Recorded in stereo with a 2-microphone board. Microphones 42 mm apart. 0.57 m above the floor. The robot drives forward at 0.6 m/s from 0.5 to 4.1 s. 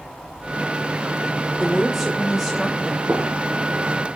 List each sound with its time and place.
1.6 s a woman speaking: 5° right (ahead or behind), 1.3 m
3.1 s a gunshot: 55° right (ahead or behind), 3.5 m